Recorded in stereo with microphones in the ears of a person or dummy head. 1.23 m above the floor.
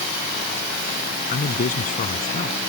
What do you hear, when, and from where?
1.3 s a man speaking: 45° left (ahead or behind)